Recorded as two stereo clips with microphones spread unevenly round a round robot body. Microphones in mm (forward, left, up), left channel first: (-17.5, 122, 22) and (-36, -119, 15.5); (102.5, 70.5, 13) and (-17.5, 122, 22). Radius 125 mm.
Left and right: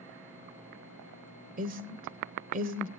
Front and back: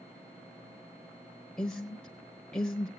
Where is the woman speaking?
100° right, 1.0 m.